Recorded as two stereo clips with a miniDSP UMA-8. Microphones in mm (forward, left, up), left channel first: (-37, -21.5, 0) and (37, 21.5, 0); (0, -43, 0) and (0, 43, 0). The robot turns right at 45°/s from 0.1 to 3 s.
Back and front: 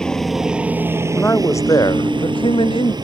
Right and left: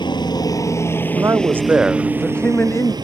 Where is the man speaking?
140° left; by 2.9 s 140° right.